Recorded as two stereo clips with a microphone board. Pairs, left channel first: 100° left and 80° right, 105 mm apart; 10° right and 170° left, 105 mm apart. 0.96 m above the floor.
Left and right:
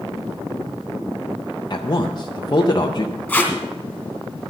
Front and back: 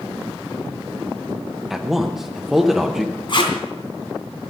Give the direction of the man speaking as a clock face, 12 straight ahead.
9 o'clock.